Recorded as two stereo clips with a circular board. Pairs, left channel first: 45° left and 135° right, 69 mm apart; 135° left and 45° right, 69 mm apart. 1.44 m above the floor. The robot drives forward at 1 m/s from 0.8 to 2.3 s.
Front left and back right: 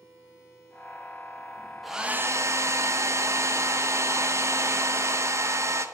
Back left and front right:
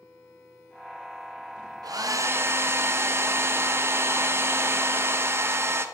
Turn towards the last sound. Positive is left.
turn(degrees=-90)